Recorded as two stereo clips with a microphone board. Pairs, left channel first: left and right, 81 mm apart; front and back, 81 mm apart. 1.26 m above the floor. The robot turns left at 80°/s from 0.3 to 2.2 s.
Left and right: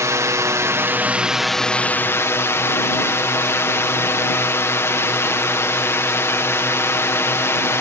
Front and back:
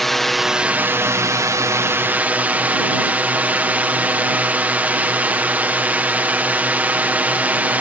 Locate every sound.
0.0 s a drone: 85° right; by 7.8 s 120° left